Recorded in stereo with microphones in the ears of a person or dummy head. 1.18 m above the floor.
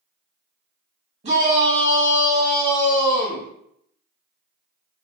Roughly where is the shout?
Right.